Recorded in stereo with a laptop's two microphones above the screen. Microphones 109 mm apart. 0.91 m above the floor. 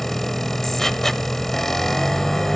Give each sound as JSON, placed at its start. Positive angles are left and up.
{"t": 0.0, "sound": "a machine running", "side_deg": 5, "distance_m": 0.8}